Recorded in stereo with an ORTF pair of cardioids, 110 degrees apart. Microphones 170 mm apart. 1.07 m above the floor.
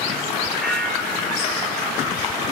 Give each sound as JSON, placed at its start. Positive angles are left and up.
{"t": 0.6, "sound": "a bell", "azimuth_deg": 0, "distance_m": 2.0}